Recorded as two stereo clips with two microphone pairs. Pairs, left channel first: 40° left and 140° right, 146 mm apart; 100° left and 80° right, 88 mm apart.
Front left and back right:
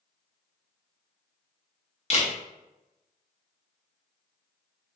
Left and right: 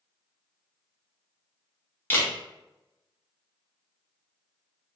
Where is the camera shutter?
45° left, 0.7 m.